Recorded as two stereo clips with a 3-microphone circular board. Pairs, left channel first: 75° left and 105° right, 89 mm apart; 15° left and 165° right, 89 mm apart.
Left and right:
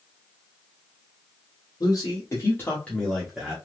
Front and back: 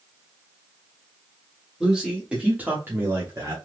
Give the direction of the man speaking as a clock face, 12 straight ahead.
8 o'clock.